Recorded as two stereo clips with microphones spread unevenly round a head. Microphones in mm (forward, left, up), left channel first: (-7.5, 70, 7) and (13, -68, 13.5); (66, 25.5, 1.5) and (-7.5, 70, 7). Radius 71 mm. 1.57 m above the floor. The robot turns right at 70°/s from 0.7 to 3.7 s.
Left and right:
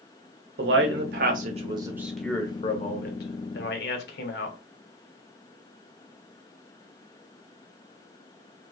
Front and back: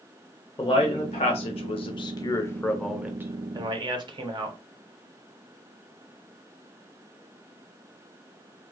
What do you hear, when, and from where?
0.6 s a man speaking: 95° right, 0.7 m; by 4.6 s 115° left, 0.7 m